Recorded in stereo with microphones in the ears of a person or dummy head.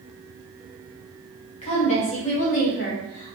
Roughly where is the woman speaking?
Left.